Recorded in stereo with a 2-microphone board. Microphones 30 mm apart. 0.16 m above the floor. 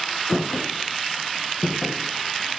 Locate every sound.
0.3 s footsteps: 5° right (ahead or behind), 1.3 m; by 2.6 s 35° left (ahead or behind), 2.0 m